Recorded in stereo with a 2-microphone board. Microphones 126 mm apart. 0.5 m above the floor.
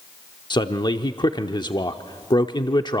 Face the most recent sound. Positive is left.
turn(degrees=35)  # may be behind; listen again after turning